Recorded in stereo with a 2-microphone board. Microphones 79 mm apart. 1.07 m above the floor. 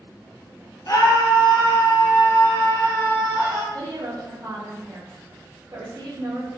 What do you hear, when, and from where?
0.9 s a scream: 45° left (ahead or behind), 0.7 m; by 3.6 s 70° left (ahead or behind), 1.9 m
3.7 s a woman speaking: 50° right (ahead or behind), 0.6 m